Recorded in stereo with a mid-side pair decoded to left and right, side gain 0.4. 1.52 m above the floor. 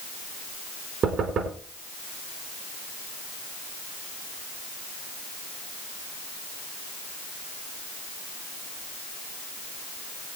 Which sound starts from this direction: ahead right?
Knocking, at 1.0 s.